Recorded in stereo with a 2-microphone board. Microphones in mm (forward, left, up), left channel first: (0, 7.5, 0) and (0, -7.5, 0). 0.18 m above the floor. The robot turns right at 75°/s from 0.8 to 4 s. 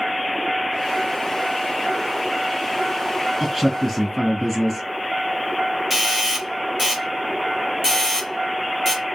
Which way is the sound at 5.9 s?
20° right (ahead or behind).